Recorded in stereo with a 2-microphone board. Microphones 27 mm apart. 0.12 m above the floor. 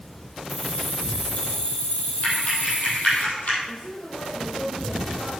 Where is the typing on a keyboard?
55° left (ahead or behind), 5 m.